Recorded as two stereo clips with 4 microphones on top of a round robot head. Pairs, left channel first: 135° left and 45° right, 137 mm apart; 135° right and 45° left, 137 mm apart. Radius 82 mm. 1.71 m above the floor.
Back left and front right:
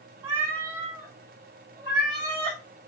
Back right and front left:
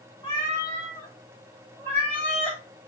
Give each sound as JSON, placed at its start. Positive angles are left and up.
{"t": 0.2, "sound": "a cat meowing", "azimuth_deg": -85, "distance_m": 2.5}